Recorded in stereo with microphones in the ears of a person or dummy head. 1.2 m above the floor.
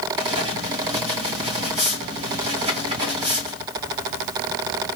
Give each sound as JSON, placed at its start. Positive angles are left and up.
{"t": 0.2, "sound": "writing", "side_deg": -30, "distance_m": 1.8}